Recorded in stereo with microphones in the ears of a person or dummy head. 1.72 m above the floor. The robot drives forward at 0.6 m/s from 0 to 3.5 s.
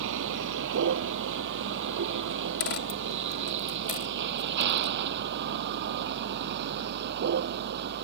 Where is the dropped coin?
50° left (ahead or behind); by 4.9 s 40° left (ahead or behind).